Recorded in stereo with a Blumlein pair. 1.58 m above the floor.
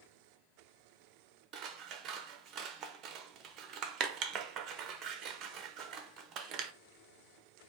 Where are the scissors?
35° right, 0.5 m.